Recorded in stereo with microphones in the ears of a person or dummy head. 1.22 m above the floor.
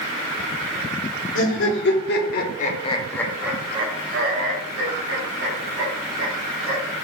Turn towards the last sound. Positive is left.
turn(degrees=-75)  # may be behind; listen again after turning